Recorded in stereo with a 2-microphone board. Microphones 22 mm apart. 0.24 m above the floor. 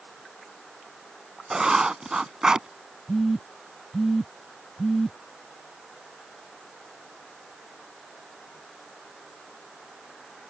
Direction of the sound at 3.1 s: 5° left (ahead or behind).